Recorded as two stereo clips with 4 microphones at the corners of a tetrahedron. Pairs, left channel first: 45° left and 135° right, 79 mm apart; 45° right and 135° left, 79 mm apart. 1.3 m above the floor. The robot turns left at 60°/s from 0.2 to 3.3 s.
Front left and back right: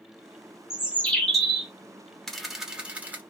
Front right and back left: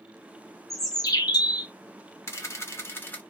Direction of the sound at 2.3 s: 35° right.